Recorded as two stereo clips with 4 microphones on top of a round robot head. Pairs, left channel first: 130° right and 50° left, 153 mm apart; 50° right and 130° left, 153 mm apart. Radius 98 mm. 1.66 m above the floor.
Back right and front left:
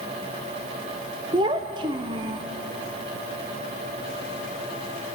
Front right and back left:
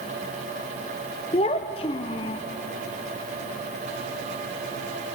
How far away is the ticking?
I don't hear ticking.